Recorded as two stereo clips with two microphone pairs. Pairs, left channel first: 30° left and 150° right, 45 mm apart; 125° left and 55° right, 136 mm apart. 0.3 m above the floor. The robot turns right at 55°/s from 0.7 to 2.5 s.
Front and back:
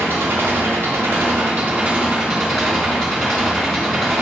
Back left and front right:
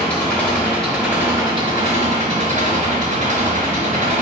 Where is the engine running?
160° right, 3 m; by 4.2 s 60° right, 3 m.